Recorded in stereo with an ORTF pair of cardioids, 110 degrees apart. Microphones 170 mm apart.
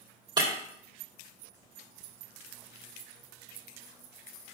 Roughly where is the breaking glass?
Ahead right.